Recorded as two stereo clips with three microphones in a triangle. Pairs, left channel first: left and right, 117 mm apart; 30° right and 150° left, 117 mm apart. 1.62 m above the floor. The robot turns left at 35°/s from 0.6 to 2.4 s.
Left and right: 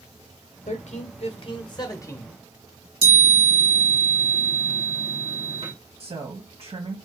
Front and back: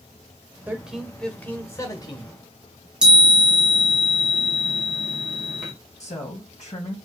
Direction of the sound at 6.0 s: 50° right.